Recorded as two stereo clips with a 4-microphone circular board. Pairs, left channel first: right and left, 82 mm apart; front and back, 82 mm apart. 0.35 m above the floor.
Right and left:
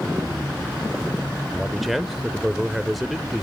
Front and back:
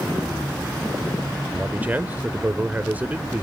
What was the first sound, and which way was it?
A man speaking, straight behind.